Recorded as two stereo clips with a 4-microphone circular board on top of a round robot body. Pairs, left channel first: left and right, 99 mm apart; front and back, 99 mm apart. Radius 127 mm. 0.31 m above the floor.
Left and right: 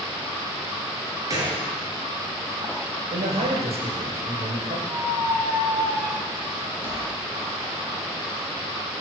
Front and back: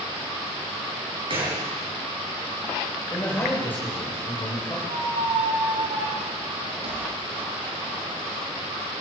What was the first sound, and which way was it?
A gunshot, 145° right.